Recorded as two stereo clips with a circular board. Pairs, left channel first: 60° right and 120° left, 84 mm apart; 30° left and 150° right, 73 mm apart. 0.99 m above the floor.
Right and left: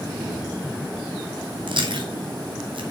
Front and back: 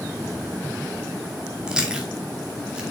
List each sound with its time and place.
1.7 s chewing: 135° left, 2 m